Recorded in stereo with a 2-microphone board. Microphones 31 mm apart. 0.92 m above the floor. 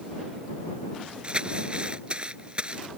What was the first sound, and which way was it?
Crumpling, 35° right (ahead or behind).